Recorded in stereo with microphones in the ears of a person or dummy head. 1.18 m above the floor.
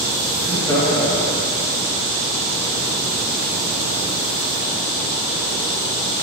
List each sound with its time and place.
0.4 s laughter: 20° left (ahead or behind), 2.5 m; by 1.6 s 25° left (ahead or behind), 1.8 m